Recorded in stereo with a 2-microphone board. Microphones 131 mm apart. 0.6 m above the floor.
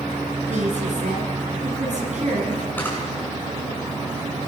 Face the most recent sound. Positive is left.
turn(degrees=15)  # may be behind; listen again after turning